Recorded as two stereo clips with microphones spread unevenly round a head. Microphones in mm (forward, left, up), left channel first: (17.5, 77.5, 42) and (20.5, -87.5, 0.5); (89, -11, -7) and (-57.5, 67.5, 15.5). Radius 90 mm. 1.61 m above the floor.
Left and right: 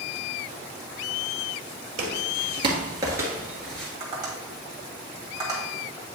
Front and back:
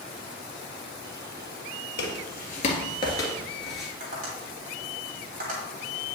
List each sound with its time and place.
2.0 s footsteps: 40° right, 2 m; by 3.9 s 105° left, 1.6 m
4.0 s tapping: 160° right, 2 m